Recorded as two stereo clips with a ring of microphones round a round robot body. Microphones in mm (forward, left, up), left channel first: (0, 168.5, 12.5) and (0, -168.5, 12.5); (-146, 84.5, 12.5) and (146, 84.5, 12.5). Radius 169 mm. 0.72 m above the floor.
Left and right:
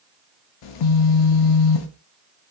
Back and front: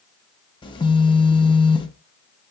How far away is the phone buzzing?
About 0.5 m.